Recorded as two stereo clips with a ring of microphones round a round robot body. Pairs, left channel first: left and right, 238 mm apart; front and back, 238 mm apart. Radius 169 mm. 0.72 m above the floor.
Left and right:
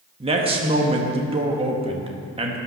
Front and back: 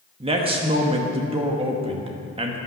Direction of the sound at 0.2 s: 135° right.